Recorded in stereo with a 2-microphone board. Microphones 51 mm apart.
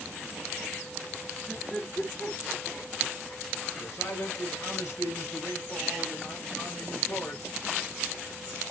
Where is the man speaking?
70° left (ahead or behind), 5 m.